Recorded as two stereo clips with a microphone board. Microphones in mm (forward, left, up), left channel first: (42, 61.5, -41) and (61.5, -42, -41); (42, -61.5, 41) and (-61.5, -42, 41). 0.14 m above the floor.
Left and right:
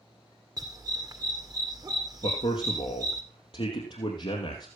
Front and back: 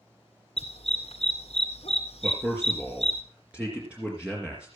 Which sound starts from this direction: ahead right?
A dog barking, at 0.6 s.